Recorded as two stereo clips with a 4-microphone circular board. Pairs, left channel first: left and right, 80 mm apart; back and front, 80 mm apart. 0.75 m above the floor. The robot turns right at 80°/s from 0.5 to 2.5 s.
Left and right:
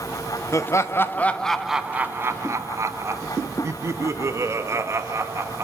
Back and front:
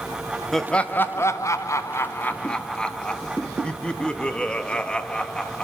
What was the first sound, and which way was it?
Laughter, 90° left.